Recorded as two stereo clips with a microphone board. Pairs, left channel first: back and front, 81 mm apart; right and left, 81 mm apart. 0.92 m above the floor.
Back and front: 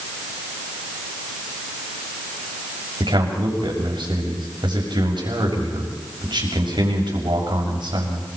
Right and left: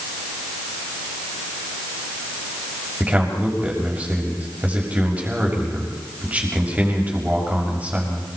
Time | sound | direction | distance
3.0 | a man speaking | 20° left | 6 m